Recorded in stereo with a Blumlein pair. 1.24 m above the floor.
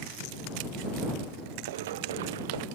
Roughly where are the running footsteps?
Ahead right.